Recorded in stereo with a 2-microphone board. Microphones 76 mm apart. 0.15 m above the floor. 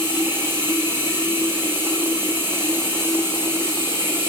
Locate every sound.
0.0 s running water: 25° right (ahead or behind), 4.5 m